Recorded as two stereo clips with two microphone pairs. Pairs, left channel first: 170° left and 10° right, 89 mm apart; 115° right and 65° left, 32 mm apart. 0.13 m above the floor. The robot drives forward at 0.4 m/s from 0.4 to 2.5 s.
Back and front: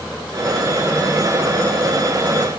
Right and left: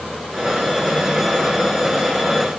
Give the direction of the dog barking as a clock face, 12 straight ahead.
No dog barking in this recording.